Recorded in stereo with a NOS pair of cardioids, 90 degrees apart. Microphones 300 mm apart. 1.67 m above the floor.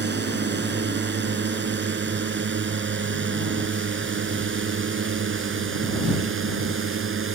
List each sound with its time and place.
0.0 s a drone: 35° right; by 7.3 s 40° right